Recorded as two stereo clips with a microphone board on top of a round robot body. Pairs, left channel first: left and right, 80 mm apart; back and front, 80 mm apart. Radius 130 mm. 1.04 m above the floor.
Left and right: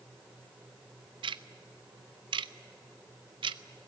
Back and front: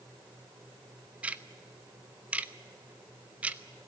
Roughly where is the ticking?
Right.